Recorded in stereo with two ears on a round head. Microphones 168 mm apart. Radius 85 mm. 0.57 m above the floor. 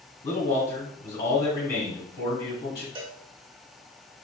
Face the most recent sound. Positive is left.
turn(degrees=-25)  # may be behind; listen again after turning